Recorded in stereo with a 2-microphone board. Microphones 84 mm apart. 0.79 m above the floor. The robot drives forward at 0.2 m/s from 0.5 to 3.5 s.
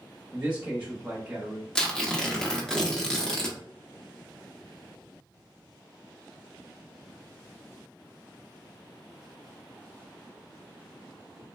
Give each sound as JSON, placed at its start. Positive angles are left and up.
{"t": 0.3, "sound": "a man speaking", "side_deg": -15, "distance_m": 1.0}
{"t": 1.8, "sound": "tearing paper", "side_deg": 10, "distance_m": 0.6}